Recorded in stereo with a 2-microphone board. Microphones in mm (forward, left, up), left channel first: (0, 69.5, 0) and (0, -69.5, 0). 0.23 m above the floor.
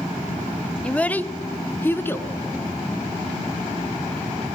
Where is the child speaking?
10° left (ahead or behind), 0.6 m; by 2.3 s 15° left (ahead or behind), 1.6 m.